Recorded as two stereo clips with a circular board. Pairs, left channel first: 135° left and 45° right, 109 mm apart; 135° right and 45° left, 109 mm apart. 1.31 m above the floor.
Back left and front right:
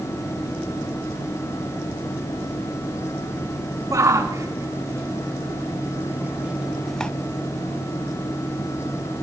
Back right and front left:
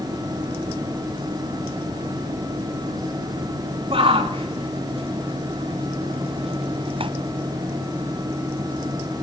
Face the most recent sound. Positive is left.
turn(degrees=60)